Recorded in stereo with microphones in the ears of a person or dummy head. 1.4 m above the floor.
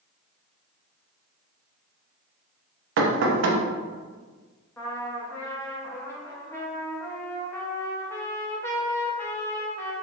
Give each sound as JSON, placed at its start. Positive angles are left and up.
{"t": 3.0, "sound": "knocking", "side_deg": -70, "distance_m": 0.5}
{"t": 4.8, "sound": "a trumpet", "side_deg": 15, "distance_m": 0.5}